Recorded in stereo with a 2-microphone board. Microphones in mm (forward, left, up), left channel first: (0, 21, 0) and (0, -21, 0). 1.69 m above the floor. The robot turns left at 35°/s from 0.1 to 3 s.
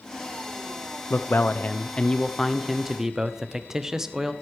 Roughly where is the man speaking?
Ahead left.